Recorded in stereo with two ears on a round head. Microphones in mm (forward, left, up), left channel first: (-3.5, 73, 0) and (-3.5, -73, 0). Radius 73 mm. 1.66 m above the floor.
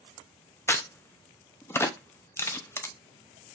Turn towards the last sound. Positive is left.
turn(degrees=15)  # may be behind; listen again after turning